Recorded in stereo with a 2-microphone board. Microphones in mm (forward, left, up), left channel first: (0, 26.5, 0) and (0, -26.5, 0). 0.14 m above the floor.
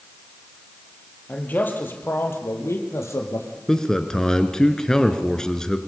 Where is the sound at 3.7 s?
10° left (ahead or behind), 1.8 m.